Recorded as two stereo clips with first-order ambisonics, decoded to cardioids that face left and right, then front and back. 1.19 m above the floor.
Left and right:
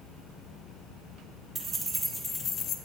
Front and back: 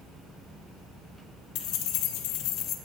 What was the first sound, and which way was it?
Keys jangling, 20° right.